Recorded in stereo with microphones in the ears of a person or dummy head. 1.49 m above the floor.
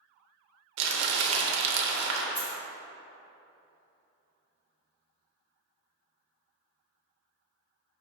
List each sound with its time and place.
0.8 s crumpling: 70° right (ahead or behind), 0.6 m
2.4 s a dropped coin: 60° left (ahead or behind), 2.0 m